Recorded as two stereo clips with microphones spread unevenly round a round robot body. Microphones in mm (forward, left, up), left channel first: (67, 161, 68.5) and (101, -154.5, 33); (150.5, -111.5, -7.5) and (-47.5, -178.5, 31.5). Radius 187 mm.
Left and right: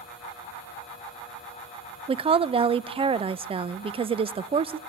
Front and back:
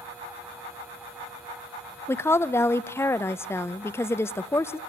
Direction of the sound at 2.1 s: 35° right.